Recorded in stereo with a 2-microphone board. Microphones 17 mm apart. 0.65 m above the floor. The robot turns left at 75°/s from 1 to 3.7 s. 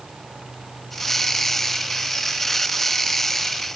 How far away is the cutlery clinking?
I don't hear cutlery clinking.